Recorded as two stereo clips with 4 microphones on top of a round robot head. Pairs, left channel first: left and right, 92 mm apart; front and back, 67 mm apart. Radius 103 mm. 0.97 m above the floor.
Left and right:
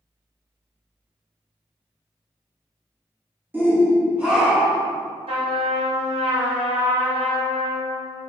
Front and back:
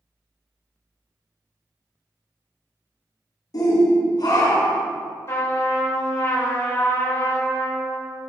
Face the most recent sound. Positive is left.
turn(degrees=-55)